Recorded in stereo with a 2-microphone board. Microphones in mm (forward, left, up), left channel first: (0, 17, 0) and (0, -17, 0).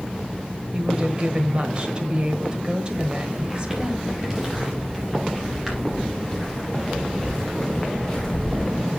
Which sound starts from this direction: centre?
Footsteps, at 2.9 s.